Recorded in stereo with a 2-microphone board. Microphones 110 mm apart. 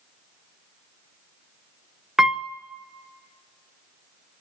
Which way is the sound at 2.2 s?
5° right (ahead or behind).